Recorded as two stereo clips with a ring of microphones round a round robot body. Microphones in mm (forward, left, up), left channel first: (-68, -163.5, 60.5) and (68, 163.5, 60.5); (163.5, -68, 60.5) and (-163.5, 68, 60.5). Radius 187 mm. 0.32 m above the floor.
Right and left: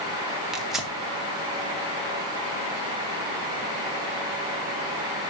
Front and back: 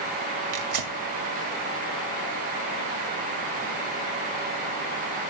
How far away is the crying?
No crying in this recording.